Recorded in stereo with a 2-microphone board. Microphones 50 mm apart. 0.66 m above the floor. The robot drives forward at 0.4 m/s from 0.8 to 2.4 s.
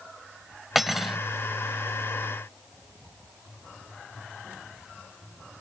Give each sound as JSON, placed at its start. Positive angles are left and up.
{"t": 0.8, "sound": "cutlery clinking", "side_deg": -5}